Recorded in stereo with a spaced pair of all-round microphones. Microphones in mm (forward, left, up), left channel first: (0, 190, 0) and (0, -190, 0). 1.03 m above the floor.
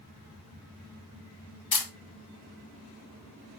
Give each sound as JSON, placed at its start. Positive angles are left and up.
{"t": 1.7, "sound": "a camera shutter", "side_deg": 65, "distance_m": 0.7}